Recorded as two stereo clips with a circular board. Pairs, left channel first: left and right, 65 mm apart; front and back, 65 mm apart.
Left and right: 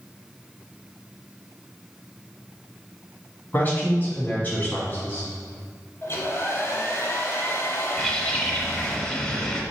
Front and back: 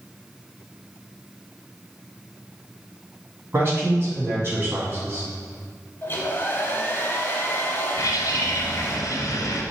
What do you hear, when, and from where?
3.5 s a man speaking: 140° left, 1.6 m
6.0 s a hair dryer: 55° left, 0.9 m
8.0 s a bird: 10° left, 0.8 m